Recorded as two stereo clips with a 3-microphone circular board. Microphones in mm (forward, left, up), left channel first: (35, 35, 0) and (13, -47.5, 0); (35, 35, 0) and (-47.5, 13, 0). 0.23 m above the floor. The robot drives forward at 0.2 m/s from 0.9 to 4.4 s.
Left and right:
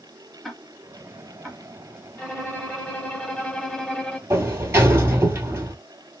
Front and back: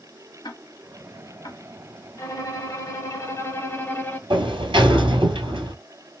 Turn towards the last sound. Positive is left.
turn(degrees=-165)